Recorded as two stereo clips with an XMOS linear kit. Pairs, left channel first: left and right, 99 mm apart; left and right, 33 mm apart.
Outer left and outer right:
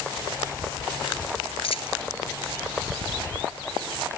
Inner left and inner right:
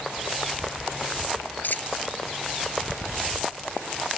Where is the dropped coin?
75° left (ahead or behind).